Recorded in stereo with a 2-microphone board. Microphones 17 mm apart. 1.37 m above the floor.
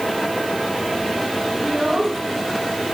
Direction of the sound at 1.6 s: 50° right (ahead or behind).